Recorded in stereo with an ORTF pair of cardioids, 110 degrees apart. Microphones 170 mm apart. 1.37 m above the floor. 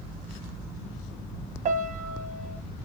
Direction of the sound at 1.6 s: 50° right.